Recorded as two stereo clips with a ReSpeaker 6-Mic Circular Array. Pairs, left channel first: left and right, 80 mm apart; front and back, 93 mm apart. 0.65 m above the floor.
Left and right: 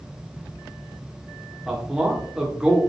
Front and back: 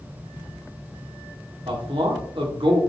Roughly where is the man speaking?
Behind.